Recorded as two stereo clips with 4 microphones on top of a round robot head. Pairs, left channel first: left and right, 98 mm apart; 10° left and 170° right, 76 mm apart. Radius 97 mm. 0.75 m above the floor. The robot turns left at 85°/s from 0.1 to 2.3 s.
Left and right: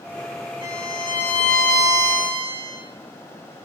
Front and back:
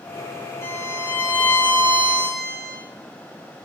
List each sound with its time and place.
0.6 s a violin: 65° left, 4 m; by 2.8 s 80° right, 4 m